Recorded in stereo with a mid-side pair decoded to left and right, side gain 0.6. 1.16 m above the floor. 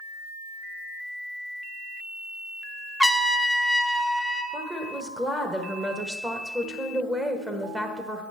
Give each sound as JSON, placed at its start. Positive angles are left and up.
{"t": 3.0, "sound": "a trumpet", "azimuth_deg": 0, "distance_m": 0.7}
{"t": 4.5, "sound": "a woman speaking", "azimuth_deg": -10, "distance_m": 1.0}